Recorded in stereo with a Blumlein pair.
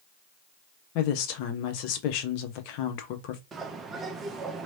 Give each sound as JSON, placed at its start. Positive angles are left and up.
{"t": 0.9, "sound": "a woman speaking", "azimuth_deg": 45, "distance_m": 0.8}
{"t": 3.5, "sound": "a bird", "azimuth_deg": -20, "distance_m": 0.7}